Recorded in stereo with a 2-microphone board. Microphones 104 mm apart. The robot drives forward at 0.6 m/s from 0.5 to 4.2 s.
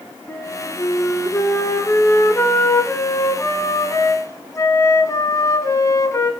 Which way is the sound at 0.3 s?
15° left (ahead or behind).